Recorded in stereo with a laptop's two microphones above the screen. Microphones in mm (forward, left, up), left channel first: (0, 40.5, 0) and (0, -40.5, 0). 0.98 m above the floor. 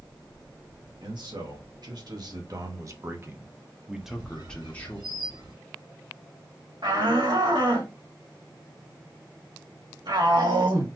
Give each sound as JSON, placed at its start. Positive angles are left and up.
{"t": 1.0, "sound": "a man speaking", "side_deg": -65, "distance_m": 1.8}
{"t": 4.0, "sound": "a squeak", "side_deg": -65, "distance_m": 2.5}
{"t": 6.8, "sound": "a shout", "side_deg": -70, "distance_m": 2.5}